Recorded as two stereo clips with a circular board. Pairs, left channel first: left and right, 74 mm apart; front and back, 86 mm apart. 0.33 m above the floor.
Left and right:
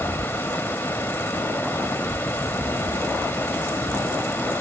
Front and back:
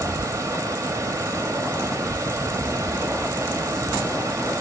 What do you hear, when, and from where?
0.0 s running water: 140° left, 0.9 m